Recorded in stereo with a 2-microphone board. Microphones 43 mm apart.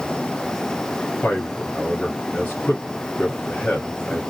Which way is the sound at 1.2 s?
40° left (ahead or behind).